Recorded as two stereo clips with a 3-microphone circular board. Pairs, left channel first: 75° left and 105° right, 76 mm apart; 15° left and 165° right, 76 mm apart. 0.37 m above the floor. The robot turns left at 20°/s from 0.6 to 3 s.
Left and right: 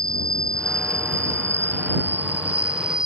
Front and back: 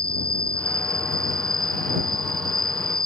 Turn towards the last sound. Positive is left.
turn(degrees=180)